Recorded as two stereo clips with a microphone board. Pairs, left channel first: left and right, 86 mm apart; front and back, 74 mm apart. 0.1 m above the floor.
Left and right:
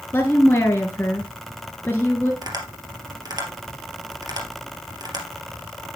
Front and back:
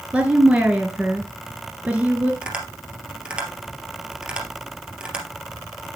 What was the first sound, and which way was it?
A woman speaking, 125° left.